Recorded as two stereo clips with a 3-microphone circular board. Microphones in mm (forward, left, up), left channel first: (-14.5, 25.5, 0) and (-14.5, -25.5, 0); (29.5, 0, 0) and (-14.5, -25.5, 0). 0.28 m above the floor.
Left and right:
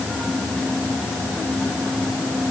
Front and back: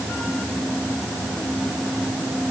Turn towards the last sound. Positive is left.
No sound to turn to.